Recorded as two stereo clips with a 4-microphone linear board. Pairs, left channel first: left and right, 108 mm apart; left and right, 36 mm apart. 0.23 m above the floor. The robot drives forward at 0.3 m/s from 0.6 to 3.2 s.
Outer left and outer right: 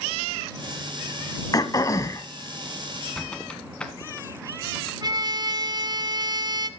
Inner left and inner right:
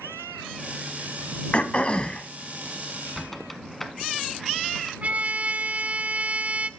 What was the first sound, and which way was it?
Throat clearing, 35° left (ahead or behind).